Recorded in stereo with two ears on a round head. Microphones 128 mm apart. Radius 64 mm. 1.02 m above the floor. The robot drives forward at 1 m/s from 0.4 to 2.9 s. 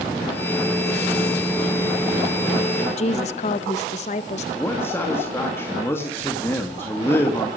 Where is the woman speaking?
50° left (ahead or behind), 0.9 m.